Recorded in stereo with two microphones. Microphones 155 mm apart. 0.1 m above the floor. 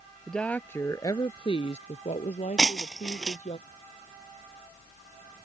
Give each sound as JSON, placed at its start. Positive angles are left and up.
{"t": 0.3, "sound": "a woman speaking", "side_deg": 5}
{"t": 2.6, "sound": "breaking glass", "side_deg": 5}